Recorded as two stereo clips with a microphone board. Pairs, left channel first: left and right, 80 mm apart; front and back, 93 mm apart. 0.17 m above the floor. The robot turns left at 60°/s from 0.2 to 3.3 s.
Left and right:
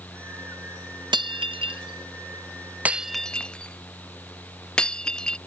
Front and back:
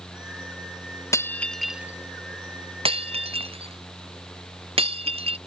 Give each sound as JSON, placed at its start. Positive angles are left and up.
{"t": 1.1, "sound": "breaking glass", "azimuth_deg": -60}